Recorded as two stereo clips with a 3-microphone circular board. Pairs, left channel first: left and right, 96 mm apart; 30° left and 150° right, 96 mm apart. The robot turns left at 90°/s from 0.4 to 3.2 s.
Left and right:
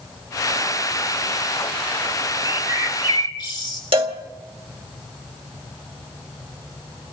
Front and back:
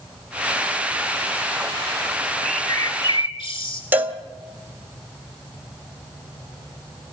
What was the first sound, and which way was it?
A bird, 125° left.